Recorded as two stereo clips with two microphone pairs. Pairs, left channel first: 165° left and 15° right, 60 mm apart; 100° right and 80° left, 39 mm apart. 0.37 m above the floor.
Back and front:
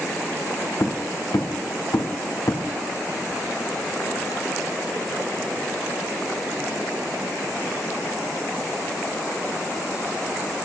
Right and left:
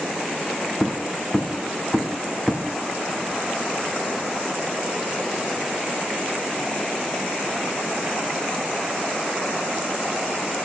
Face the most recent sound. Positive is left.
turn(degrees=175)